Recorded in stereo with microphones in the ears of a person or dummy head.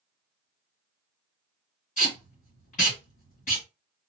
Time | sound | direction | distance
2.0 | tape being pulled | 25° left (ahead or behind) | 1.7 m